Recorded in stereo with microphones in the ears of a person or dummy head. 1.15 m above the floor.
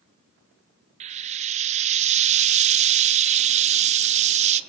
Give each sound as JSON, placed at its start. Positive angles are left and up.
{"t": 1.0, "sound": "frying", "side_deg": -35, "distance_m": 0.9}